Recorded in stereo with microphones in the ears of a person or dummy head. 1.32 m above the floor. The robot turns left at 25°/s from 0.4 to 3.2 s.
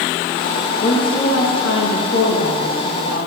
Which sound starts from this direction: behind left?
A woman speaking, at 0.8 s.